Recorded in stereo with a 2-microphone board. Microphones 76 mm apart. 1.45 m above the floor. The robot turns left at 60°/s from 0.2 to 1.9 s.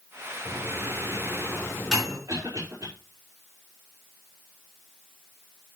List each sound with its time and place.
0.5 s a microwave: 85° left, 5 m; by 2.2 s centre (ahead or behind), 5 m
2.3 s a cough: 45° right (ahead or behind), 4.5 m